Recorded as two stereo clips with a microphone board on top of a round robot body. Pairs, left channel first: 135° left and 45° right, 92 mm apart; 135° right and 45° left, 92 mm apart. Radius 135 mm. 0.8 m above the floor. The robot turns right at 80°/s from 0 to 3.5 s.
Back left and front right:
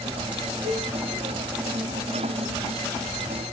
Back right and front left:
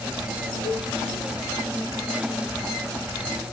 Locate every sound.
0.6 s a cowbell: 45° right, 2.5 m; by 0.9 s 30° right, 2.5 m